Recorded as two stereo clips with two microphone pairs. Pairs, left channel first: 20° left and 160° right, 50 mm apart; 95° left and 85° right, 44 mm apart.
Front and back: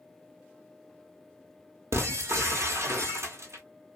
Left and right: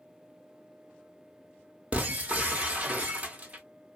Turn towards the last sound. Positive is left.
turn(degrees=-140)